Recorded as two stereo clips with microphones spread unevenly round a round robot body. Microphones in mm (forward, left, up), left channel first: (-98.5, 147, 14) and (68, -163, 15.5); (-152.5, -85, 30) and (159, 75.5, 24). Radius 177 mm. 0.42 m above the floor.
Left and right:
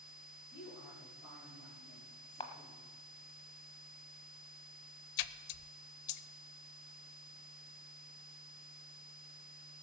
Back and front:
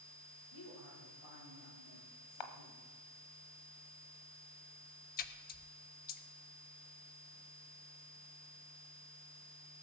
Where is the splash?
140° left, 0.6 m.